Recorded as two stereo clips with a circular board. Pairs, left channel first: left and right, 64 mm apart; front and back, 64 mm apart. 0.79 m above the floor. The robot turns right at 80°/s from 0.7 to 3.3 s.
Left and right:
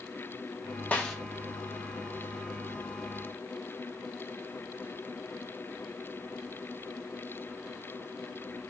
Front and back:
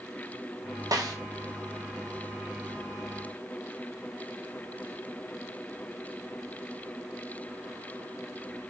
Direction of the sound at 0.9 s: 155° left.